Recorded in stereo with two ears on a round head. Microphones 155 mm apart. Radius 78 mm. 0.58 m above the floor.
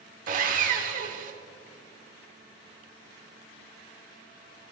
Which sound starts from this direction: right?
Sawing, at 0.3 s.